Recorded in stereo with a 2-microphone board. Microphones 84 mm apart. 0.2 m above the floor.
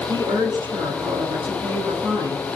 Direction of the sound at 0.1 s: 60° right (ahead or behind).